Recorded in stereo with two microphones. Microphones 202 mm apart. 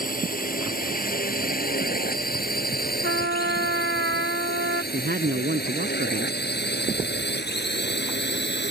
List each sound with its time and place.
0.0 s a drone: 40° left (ahead or behind); by 8.7 s 55° left (ahead or behind)
3.0 s a trumpet: 55° right (ahead or behind)
4.9 s a woman speaking: 50° right (ahead or behind)